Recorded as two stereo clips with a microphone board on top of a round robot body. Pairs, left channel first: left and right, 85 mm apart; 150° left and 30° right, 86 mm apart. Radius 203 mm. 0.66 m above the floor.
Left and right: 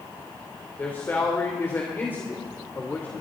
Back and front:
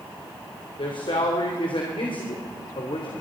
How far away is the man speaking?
About 3.5 m.